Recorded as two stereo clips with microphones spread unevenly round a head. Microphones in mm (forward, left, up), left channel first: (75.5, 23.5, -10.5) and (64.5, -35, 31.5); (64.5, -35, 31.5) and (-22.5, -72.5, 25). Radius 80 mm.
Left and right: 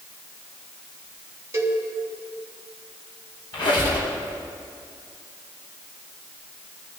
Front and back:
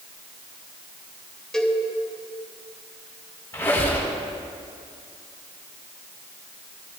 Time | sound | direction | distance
1.5 | a cowbell | 60° right | 3 m
3.5 | a squeak | 100° left | 3.5 m